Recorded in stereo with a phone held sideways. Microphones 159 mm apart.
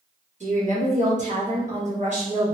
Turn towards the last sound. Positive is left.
turn(degrees=-50)  # may be behind; listen again after turning